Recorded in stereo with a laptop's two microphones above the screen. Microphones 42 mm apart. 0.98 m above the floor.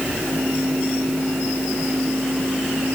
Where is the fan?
80° right.